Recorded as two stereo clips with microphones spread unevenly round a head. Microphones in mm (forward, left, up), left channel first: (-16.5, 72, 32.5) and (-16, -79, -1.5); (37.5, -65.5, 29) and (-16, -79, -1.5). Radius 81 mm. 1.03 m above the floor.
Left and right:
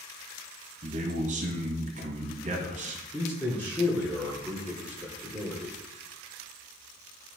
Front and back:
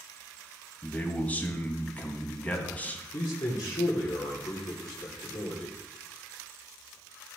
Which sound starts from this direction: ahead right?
A man speaking, at 0.8 s.